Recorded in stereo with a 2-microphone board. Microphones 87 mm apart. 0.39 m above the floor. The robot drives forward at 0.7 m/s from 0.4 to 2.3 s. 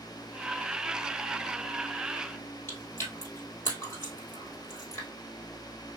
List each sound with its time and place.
2.7 s chewing: 30° left (ahead or behind), 2 m